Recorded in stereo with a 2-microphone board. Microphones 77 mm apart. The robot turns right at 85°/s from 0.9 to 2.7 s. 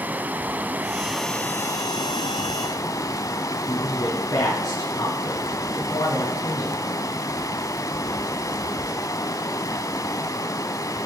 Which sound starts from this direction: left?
A man speaking, at 3.7 s.